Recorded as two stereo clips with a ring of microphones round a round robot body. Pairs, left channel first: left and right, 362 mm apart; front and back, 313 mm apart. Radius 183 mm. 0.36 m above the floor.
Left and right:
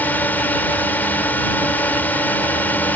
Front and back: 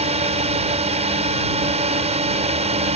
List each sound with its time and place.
0.0 s a drone: 165° left